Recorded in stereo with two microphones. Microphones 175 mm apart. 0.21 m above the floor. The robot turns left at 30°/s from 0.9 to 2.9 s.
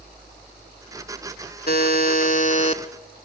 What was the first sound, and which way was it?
A buzzer, 75° left.